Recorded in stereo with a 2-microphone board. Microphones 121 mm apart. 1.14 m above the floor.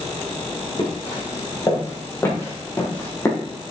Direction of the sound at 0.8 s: 35° left (ahead or behind).